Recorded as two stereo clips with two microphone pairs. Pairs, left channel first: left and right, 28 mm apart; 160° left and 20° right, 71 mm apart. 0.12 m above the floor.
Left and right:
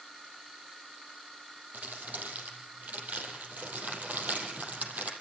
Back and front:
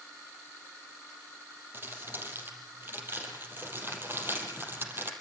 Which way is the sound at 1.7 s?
75° right.